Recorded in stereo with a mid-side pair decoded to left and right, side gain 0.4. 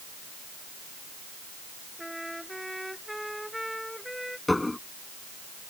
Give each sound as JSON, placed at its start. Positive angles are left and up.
{"t": 2.0, "sound": "a trumpet", "azimuth_deg": 0}
{"t": 4.5, "sound": "dishes clattering", "azimuth_deg": 15}